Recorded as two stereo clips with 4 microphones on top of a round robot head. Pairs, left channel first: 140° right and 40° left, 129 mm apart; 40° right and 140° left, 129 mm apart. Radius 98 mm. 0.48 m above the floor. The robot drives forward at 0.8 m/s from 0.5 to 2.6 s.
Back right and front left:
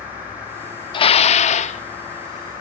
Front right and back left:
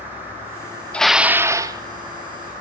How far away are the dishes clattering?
About 0.5 m.